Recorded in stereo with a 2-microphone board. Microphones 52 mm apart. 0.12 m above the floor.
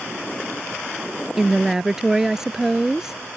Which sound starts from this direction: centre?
A woman speaking, at 1.4 s.